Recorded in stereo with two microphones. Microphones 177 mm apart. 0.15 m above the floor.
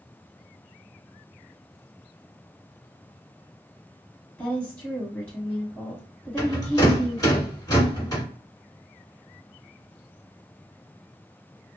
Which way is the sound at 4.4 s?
15° left (ahead or behind).